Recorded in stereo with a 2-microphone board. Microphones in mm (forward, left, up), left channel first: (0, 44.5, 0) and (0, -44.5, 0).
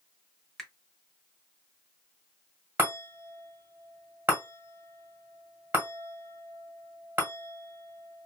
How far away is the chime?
About 1.6 m.